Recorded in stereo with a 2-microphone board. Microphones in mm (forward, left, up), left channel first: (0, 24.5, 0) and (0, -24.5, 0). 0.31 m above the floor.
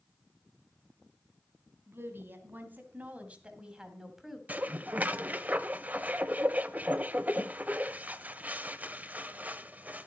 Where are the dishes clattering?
35° right (ahead or behind), 0.6 m.